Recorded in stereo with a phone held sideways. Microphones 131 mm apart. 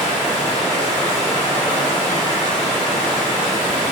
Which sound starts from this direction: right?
Running water, at 0.0 s.